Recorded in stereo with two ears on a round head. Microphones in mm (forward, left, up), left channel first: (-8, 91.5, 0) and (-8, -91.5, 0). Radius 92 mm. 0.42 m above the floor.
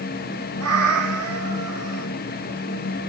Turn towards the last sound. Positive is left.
turn(degrees=-90)